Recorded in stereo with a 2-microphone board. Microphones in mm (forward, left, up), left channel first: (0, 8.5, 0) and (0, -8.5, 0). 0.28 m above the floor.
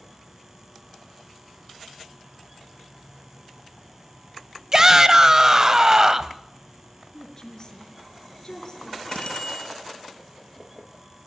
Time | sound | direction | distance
4.7 | a shout | 25° right (ahead or behind) | 1.3 m
7.1 | a woman speaking | 35° left (ahead or behind) | 5.5 m
9.1 | a bicycle bell | 65° left (ahead or behind) | 4.5 m